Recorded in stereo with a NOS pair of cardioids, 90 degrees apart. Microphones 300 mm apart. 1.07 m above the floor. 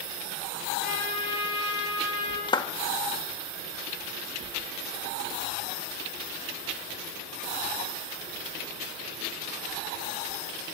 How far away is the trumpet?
About 9 m.